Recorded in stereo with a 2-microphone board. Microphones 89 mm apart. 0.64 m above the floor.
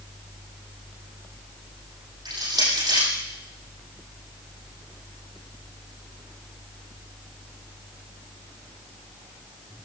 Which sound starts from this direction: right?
Crushing, at 2.2 s.